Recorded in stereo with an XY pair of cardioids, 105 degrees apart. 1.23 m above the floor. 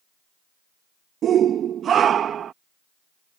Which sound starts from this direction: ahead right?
A shout, at 1.2 s.